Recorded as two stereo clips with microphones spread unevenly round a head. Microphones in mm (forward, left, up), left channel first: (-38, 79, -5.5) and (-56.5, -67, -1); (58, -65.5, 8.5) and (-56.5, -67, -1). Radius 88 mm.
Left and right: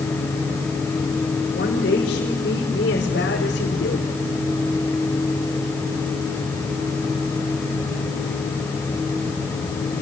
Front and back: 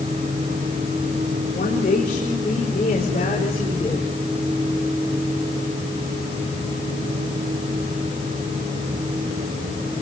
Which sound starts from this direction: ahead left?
A woman speaking, at 1.5 s.